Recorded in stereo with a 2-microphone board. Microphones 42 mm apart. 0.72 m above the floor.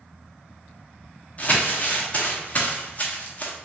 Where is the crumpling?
35° left (ahead or behind), 0.9 m.